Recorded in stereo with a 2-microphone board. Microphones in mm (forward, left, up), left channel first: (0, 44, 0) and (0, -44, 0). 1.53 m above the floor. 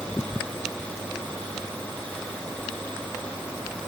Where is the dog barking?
I don't hear a dog barking.